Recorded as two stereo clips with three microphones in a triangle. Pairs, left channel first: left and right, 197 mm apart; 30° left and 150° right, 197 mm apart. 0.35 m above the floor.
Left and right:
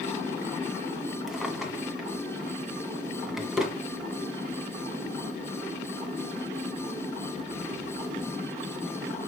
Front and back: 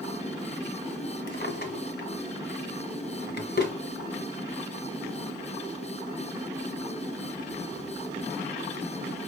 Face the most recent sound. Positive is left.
turn(degrees=-5)